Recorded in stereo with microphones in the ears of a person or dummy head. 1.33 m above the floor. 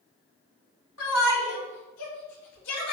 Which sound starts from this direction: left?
A shout, at 1.0 s.